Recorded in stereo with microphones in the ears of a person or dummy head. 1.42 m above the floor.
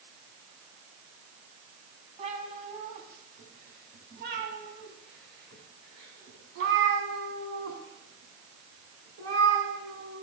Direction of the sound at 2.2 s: 40° right (ahead or behind).